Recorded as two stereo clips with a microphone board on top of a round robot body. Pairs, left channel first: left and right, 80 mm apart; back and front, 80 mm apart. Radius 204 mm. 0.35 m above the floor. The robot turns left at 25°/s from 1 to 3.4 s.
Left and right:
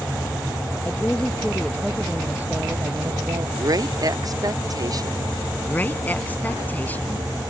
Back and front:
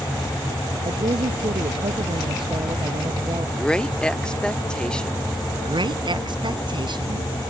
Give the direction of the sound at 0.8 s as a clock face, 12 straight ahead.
11 o'clock.